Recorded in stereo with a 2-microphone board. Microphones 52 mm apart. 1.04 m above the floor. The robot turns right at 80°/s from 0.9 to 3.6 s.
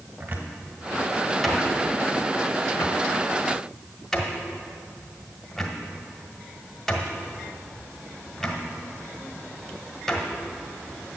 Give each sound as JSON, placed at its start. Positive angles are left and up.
{"t": 0.2, "sound": "a cupboard door", "side_deg": -35, "distance_m": 1.5}